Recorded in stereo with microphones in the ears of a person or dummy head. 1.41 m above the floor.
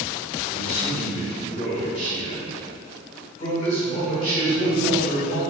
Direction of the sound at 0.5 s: 45° left (ahead or behind).